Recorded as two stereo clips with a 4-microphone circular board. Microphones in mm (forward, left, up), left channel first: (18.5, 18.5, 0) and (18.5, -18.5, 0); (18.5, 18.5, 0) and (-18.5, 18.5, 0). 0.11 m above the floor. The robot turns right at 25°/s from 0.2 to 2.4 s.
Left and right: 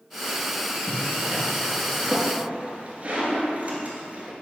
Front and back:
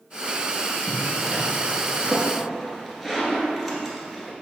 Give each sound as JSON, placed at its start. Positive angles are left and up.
{"t": 0.9, "sound": "a zipper", "azimuth_deg": -140, "distance_m": 1.9}